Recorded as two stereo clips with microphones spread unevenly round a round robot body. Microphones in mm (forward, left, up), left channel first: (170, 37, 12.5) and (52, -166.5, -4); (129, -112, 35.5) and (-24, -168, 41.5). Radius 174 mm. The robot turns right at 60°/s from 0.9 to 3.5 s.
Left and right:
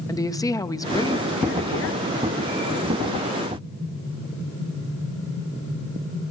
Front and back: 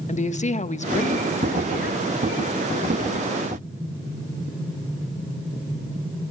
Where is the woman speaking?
15° right, 1.3 m; by 2.1 s 50° left, 1.3 m.